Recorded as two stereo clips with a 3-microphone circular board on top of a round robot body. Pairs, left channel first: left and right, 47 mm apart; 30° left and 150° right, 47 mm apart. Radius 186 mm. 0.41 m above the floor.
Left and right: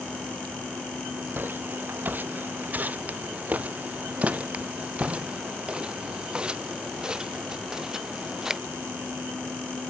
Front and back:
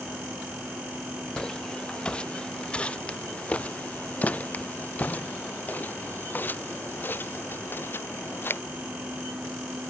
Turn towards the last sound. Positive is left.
turn(degrees=-10)